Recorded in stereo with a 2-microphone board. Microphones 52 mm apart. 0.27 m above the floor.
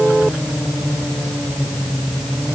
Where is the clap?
No clap in this recording.